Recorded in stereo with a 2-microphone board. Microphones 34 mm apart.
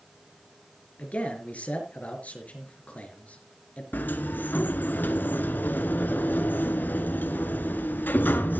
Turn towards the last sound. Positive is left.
turn(degrees=65)  # may be behind; listen again after turning